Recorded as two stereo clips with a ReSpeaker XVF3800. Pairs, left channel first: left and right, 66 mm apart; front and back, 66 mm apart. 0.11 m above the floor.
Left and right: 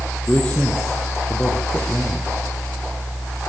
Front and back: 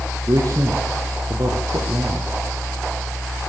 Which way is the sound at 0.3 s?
160° left.